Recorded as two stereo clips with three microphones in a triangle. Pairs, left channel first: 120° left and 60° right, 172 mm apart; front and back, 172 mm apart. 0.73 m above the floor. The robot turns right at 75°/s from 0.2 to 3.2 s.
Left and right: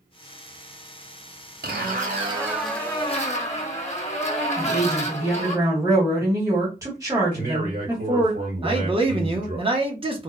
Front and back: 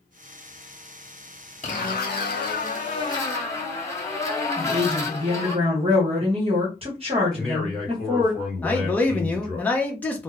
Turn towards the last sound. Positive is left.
turn(degrees=-70)